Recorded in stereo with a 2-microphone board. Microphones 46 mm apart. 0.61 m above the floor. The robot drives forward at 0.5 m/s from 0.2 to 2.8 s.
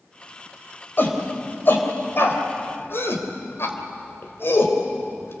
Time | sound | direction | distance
1.0 | a shout | 45° left (ahead or behind) | 3.5 m